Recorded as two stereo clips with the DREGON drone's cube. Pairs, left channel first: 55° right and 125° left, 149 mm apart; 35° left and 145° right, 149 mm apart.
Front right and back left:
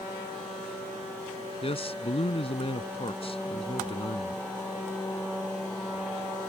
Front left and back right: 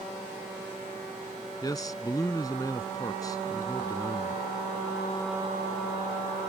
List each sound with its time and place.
1.6 s a man speaking: 25° right